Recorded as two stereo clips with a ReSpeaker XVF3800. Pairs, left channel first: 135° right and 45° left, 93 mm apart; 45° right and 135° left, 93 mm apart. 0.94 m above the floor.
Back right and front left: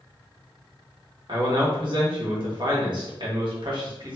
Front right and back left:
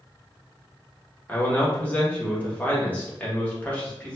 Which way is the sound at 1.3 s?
25° left.